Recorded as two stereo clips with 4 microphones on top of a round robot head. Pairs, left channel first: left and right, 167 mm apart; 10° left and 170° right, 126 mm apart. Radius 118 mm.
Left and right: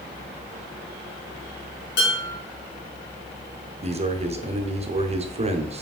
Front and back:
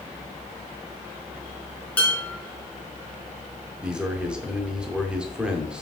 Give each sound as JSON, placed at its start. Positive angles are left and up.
{"t": 2.0, "sound": "dishes clattering", "azimuth_deg": 90, "distance_m": 3.5}
{"t": 3.8, "sound": "a man speaking", "azimuth_deg": -90, "distance_m": 0.9}